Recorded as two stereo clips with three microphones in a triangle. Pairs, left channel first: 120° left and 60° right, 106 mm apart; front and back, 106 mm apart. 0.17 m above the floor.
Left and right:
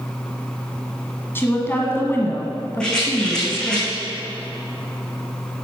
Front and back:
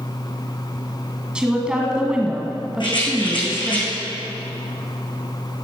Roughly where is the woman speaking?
Behind left.